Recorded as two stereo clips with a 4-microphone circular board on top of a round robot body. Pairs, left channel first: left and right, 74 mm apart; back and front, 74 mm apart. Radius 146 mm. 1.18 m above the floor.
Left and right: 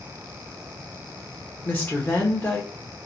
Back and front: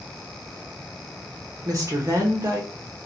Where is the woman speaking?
30° left, 0.8 m.